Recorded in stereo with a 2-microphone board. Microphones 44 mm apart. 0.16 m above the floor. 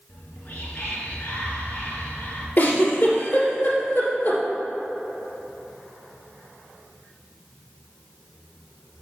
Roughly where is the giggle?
Left.